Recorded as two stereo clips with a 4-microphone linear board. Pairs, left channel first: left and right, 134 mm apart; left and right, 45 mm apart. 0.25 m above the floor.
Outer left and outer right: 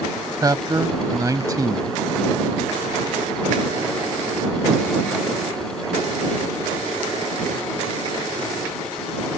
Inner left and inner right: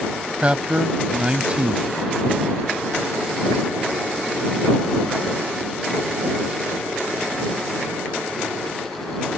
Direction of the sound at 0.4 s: 25° right (ahead or behind).